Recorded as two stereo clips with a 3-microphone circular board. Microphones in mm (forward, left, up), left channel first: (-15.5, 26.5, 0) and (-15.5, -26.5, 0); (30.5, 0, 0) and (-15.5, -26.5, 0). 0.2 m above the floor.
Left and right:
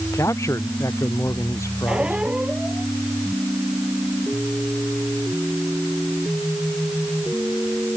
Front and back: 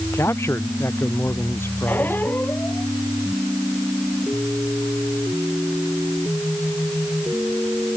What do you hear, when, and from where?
0.1 s a man speaking: 65° left; by 2.2 s 70° left
1.9 s a squeak: 20° right